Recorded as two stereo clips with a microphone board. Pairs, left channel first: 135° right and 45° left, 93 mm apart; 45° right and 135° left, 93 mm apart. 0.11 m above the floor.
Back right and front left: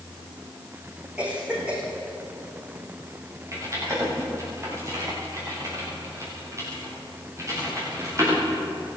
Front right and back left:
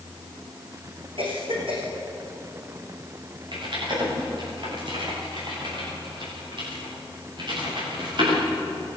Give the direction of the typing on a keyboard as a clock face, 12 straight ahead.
9 o'clock.